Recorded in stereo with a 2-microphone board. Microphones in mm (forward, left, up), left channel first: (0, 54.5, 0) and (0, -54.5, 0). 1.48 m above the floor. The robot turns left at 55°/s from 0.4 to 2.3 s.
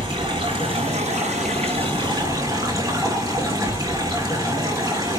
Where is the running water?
45° right, 6 m; by 5.2 s 150° right, 6 m.